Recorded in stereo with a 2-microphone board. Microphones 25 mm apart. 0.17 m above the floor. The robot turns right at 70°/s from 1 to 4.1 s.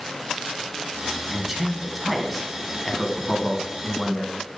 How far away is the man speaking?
About 1.1 m.